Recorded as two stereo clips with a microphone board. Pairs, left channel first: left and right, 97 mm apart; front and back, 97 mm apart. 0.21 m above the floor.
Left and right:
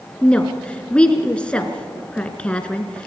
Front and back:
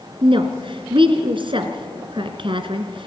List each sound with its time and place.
0.2 s a woman speaking: 165° left, 2 m